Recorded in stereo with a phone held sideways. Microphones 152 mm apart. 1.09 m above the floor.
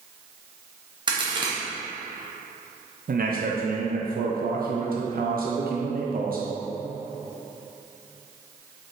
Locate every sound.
1.1 s a crack: 30° right (ahead or behind), 0.9 m
3.1 s a man speaking: 70° right (ahead or behind), 0.5 m